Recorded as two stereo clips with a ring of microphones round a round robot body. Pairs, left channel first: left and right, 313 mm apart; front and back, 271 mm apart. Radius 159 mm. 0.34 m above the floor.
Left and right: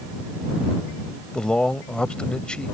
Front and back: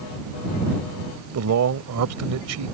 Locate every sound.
1.3 s a man speaking: 175° left